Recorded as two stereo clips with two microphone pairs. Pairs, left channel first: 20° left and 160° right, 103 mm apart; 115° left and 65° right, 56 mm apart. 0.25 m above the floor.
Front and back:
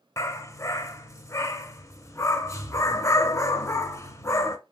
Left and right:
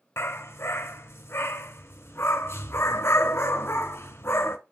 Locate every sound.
0.2 s a dog barking: 80° left, 0.5 m